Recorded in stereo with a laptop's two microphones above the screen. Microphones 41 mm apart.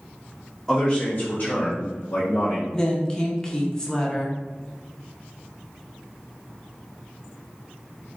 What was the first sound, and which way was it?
A man speaking, 10° left (ahead or behind).